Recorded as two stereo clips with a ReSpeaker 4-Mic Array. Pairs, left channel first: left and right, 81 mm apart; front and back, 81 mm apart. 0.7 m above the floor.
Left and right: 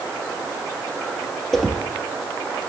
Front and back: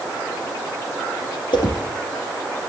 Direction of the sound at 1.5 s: 5° left.